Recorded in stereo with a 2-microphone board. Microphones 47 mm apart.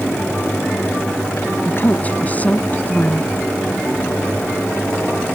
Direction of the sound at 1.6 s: 30° left (ahead or behind).